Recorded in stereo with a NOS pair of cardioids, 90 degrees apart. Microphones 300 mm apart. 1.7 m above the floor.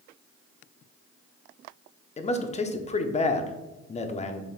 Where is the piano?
I don't hear a piano.